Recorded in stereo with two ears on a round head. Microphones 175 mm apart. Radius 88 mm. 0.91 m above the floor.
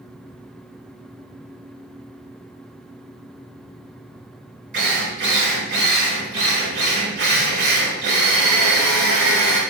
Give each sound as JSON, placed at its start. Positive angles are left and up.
{"t": 4.7, "sound": "a drill", "side_deg": -60, "distance_m": 3.0}